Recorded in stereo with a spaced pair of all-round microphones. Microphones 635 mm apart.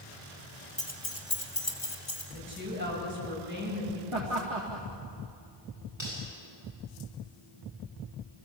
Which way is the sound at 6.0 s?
45° left (ahead or behind).